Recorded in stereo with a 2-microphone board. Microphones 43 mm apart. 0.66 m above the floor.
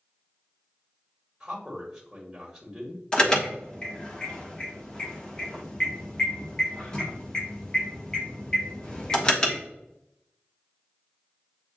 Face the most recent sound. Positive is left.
turn(degrees=20)  # may be behind; listen again after turning